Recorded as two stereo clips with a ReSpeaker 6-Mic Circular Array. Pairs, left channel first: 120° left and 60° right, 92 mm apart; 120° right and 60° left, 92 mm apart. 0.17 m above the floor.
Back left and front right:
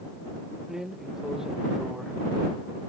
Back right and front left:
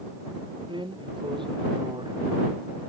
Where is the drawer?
25° left.